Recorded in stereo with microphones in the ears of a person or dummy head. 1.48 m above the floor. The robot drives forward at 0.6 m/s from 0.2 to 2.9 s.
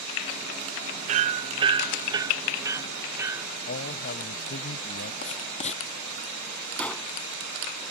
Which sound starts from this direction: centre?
A gunshot, at 6.8 s.